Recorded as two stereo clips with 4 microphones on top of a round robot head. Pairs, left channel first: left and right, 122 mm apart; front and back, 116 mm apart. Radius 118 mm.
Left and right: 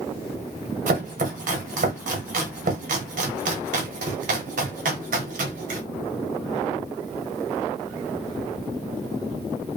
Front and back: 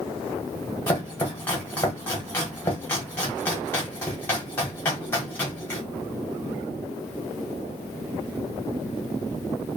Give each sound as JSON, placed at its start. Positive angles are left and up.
{"t": 0.9, "sound": "chopping", "azimuth_deg": -75, "distance_m": 0.9}